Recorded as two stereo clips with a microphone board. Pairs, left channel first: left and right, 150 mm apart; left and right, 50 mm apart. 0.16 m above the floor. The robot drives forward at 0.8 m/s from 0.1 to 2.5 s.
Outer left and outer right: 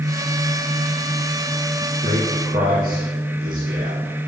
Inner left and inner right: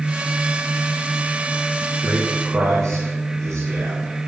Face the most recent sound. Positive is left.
turn(degrees=-55)  # may be behind; listen again after turning